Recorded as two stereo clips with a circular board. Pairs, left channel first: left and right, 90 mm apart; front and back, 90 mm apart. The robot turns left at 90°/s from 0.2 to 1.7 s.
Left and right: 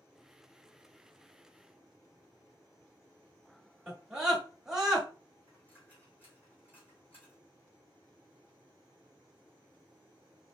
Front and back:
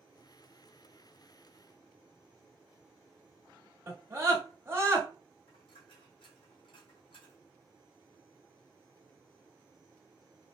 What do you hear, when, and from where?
3.9 s a scream: 165° right, 1.2 m
5.5 s a dropped coin: 20° left, 1.9 m